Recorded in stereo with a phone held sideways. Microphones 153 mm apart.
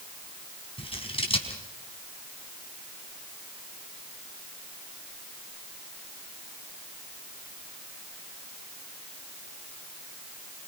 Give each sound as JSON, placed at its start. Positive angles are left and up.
{"t": 0.8, "sound": "scissors", "side_deg": 35, "distance_m": 4.5}